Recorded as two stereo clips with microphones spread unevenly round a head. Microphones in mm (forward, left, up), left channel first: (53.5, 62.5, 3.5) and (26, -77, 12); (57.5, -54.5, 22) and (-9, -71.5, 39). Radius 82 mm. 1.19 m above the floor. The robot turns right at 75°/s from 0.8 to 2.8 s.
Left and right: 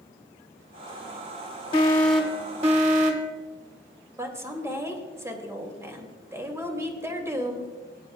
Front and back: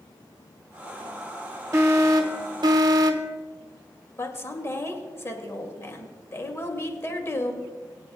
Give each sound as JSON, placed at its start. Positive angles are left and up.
{"t": 1.7, "sound": "an alarm", "azimuth_deg": 135, "distance_m": 1.4}
{"t": 4.2, "sound": "a woman speaking", "azimuth_deg": -30, "distance_m": 2.5}